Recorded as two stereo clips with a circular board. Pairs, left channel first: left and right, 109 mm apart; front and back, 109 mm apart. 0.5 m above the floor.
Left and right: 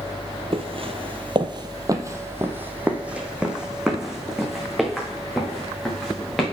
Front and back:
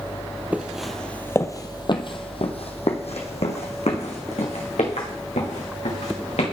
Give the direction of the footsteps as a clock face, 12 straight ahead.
4 o'clock.